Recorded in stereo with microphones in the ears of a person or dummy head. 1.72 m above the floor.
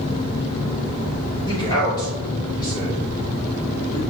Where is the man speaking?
30° left (ahead or behind), 1.8 m.